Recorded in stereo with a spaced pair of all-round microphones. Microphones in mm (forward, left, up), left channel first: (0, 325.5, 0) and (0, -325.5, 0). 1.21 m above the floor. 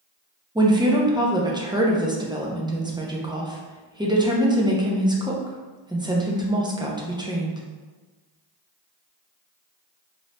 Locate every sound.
0.6 s a woman speaking: 10° right (ahead or behind), 0.5 m